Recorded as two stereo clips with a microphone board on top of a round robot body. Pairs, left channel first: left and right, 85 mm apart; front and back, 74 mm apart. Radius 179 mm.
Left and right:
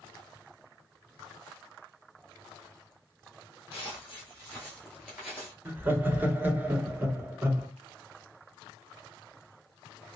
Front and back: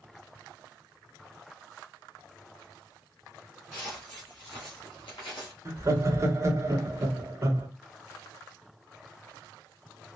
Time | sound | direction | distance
3.7 | footsteps | 80° left | 1.0 m
5.7 | laughter | 150° right | 1.2 m